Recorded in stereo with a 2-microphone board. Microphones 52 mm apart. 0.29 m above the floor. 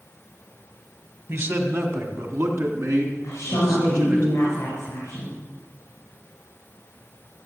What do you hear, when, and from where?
1.3 s a man speaking: 50° right (ahead or behind), 2 m; by 4.2 s 60° right (ahead or behind), 4.5 m
3.2 s a woman speaking: 55° left (ahead or behind), 4.5 m